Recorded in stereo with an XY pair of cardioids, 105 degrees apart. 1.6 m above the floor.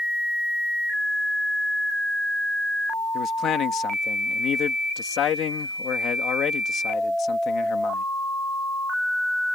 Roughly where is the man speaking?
Ahead left.